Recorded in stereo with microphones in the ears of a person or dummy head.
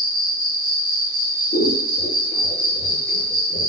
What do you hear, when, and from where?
0.0 s an insect: 10° right (ahead or behind), 0.8 m
1.5 s scissors: 55° left (ahead or behind), 0.7 m